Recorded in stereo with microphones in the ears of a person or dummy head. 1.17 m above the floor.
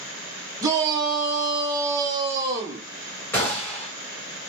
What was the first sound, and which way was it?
A shout, 20° right (ahead or behind).